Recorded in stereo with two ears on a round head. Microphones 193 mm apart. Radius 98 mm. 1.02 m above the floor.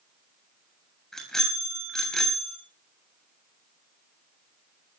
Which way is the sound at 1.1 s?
Centre (ahead or behind).